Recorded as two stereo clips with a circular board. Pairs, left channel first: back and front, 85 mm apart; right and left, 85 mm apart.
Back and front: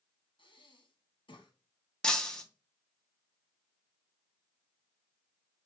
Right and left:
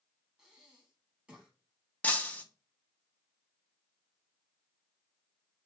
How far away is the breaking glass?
About 0.7 m.